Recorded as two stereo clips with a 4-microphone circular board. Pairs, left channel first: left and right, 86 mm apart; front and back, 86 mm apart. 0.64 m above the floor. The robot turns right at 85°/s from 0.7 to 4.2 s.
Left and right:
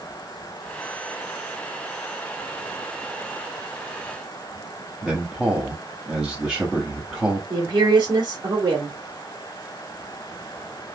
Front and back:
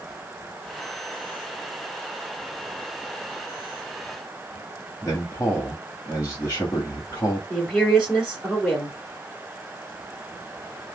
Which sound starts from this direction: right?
A woman speaking, at 7.5 s.